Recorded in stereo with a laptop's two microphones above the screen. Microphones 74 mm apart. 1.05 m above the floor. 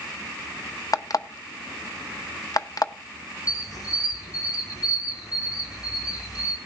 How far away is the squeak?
About 1.8 m.